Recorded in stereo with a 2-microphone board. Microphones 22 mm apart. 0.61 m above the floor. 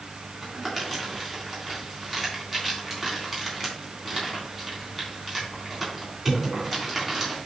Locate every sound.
0.4 s crumpling: 15° right (ahead or behind), 3.5 m